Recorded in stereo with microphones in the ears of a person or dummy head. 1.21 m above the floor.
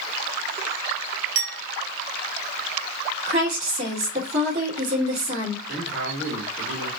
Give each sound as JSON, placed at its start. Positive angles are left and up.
{"t": 1.4, "sound": "a clink", "side_deg": -70, "distance_m": 1.2}
{"t": 3.2, "sound": "a woman speaking", "side_deg": -40, "distance_m": 2.5}
{"t": 5.7, "sound": "a man speaking", "side_deg": -65, "distance_m": 2.0}